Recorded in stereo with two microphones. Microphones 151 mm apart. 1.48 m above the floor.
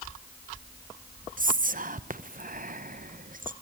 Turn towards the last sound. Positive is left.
turn(degrees=-60)  # may be behind; listen again after turning